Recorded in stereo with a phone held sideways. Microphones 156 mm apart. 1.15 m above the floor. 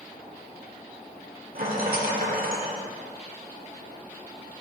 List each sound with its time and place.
1.6 s a rattle: 65° right (ahead or behind), 1.4 m